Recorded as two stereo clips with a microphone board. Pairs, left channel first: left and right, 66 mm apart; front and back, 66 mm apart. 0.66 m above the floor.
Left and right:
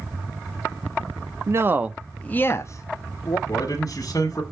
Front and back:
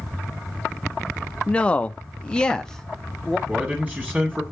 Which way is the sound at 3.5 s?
110° left.